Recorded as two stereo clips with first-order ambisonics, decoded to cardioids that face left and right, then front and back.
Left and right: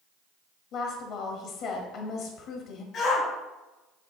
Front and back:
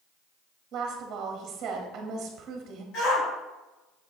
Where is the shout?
35° left, 3 m.